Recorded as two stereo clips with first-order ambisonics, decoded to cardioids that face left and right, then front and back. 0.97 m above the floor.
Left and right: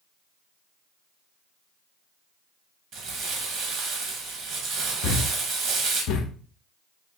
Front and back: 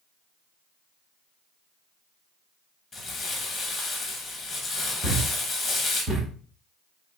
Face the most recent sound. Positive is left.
turn(degrees=110)